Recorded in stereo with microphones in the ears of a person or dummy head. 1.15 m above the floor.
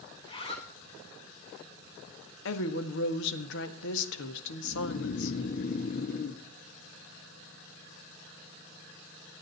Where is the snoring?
45° left (ahead or behind), 0.9 m.